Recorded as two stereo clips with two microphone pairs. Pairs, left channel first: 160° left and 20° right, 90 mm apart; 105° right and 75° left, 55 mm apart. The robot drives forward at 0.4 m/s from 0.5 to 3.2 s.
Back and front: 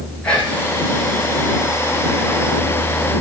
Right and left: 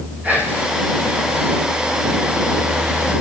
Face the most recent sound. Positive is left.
turn(degrees=160)